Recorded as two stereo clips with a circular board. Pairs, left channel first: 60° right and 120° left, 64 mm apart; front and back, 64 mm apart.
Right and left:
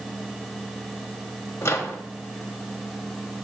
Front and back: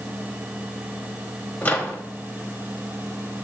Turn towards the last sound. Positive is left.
turn(degrees=-50)